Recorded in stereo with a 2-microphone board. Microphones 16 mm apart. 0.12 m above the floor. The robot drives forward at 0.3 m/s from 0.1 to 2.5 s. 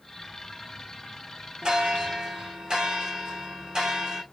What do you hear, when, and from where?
1.6 s a bell: 65° right (ahead or behind), 2.5 m; by 4.2 s 60° right (ahead or behind), 2.5 m